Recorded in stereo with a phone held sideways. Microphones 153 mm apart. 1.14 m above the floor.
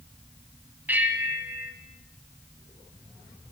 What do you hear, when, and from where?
0.9 s a bell: 10° right (ahead or behind), 2 m